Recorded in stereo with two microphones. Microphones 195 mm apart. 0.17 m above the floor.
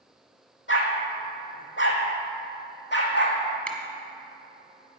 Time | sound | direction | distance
0.7 | a dog barking | 80° left | 2.0 m
3.7 | a finger snap | 5° left (ahead or behind) | 1.3 m